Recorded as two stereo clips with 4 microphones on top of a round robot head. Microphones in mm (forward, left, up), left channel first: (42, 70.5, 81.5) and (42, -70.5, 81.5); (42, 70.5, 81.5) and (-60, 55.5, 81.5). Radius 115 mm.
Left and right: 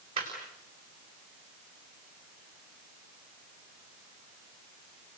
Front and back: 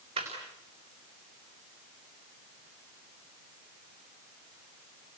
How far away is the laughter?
About 4.5 m.